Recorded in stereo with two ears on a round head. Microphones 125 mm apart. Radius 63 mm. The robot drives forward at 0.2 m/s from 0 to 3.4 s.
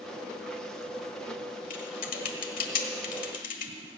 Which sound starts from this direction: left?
Typing on a keyboard, at 1.7 s.